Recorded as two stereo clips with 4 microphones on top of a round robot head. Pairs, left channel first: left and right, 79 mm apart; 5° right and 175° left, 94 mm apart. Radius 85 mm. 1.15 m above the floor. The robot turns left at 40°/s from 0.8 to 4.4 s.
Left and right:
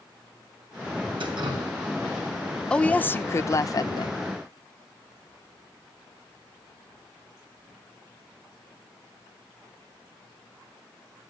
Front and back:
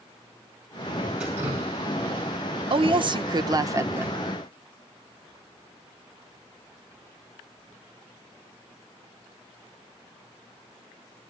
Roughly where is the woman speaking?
Behind.